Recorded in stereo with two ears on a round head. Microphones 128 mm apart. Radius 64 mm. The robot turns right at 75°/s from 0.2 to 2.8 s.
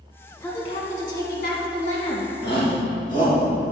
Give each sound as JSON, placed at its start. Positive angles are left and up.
{"t": 0.4, "sound": "a woman speaking", "azimuth_deg": 15, "distance_m": 1.7}
{"t": 2.4, "sound": "a shout", "side_deg": 80, "distance_m": 2.0}